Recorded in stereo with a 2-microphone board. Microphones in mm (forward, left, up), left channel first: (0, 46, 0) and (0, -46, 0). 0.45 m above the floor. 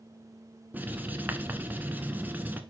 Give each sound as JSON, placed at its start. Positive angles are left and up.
{"t": 0.7, "sound": "writing", "side_deg": -20, "distance_m": 0.9}